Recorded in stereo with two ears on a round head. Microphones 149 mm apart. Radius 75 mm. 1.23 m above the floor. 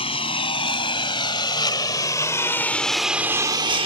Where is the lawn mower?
35° left (ahead or behind); by 3.9 s 35° right (ahead or behind).